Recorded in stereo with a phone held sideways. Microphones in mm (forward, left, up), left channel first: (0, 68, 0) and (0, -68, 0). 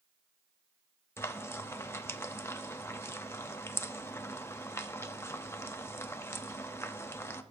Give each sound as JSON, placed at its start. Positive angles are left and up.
{"t": 1.2, "sound": "frying", "side_deg": 20, "distance_m": 0.7}